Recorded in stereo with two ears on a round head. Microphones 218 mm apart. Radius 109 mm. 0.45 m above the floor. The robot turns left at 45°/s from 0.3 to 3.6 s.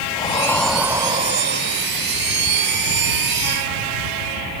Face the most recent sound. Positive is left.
turn(degrees=-130)